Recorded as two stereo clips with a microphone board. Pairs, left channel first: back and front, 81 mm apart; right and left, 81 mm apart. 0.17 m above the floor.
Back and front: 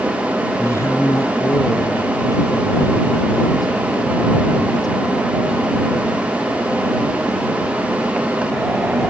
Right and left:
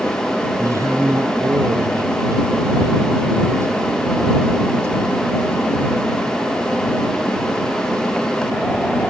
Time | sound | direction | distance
0.6 | a man speaking | 135° left | ?